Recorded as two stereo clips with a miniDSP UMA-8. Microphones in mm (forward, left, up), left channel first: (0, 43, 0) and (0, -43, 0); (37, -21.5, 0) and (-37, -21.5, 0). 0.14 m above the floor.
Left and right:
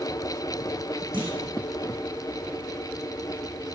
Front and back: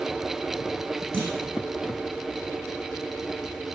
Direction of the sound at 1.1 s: 75° right.